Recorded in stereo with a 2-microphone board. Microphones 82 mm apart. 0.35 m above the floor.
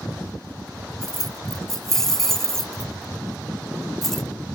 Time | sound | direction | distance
1.0 | keys jangling | 5° left (ahead or behind) | ?